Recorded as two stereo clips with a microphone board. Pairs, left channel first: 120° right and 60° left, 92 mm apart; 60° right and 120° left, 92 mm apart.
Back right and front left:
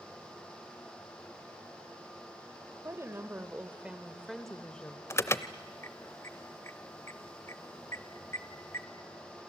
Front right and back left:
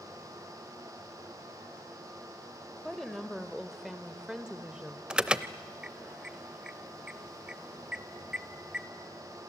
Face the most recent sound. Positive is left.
turn(degrees=-165)